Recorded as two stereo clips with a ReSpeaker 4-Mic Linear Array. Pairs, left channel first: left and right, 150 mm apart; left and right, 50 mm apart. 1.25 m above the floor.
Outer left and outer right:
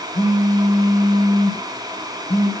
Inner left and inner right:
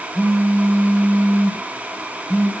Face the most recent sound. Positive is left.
turn(degrees=50)  # may be behind; listen again after turning